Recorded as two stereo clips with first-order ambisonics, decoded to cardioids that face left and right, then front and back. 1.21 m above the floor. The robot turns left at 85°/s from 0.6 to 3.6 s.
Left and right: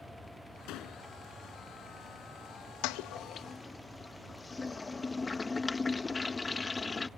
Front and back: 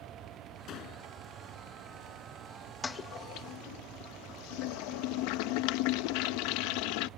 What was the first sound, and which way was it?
A door slam, 55° left.